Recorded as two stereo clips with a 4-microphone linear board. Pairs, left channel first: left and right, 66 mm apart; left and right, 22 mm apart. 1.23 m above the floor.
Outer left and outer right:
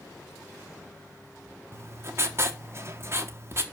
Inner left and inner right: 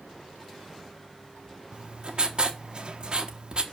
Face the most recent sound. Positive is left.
turn(degrees=-40)  # may be behind; listen again after turning